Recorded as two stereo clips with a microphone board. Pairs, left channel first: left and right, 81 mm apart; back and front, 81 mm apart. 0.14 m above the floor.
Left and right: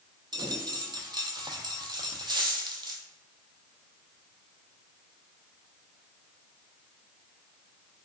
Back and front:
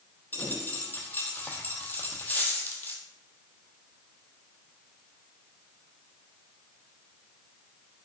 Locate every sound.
0.3 s a dropped coin: 115° right, 0.7 m